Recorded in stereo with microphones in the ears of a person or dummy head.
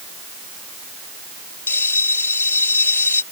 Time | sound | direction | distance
1.7 | a bell | 15° left (ahead or behind) | ?